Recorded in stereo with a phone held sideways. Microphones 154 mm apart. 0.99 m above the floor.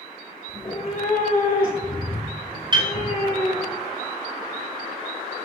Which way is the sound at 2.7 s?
30° right (ahead or behind).